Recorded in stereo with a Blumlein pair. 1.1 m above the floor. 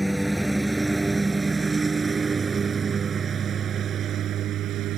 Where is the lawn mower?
Straight ahead; by 5.0 s 35° right.